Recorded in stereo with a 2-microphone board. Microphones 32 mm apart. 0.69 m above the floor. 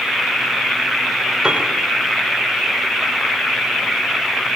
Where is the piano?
20° right (ahead or behind), 2 m.